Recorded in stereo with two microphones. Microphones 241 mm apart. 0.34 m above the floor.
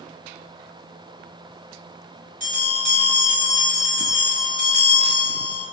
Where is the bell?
35° right (ahead or behind), 1.8 m.